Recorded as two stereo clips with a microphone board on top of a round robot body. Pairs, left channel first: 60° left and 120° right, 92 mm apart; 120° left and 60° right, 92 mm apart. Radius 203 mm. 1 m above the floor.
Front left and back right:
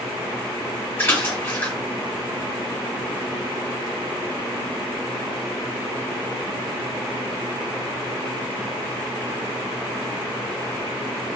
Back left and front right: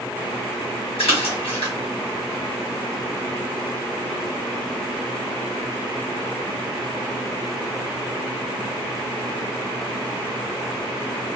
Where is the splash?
130° left, 1.5 m.